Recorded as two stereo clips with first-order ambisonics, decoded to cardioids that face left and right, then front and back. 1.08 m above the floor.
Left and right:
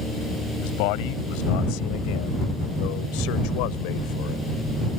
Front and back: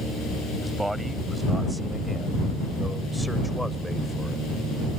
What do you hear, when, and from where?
0.6 s a man speaking: 95° left; by 4.4 s 85° left